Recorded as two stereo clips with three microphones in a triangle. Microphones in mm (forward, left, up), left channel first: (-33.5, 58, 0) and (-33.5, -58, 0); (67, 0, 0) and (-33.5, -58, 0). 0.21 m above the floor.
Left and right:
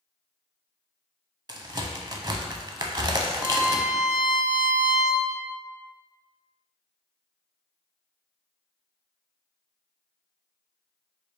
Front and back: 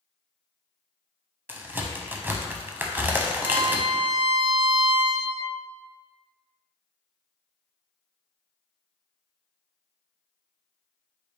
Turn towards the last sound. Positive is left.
turn(degrees=-15)